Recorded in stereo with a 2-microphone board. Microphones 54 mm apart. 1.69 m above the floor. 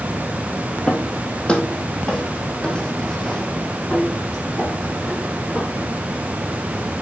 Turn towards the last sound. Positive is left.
turn(degrees=10)  # may be behind; listen again after turning